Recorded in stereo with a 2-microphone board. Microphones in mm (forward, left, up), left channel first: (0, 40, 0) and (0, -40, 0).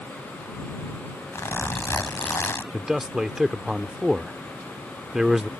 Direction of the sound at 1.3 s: 35° left (ahead or behind).